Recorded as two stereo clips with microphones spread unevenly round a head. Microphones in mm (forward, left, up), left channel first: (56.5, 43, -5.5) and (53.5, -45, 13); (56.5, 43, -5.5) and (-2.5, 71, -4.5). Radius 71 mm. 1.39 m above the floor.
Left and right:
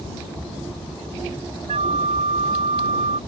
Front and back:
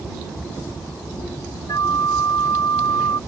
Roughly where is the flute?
Right.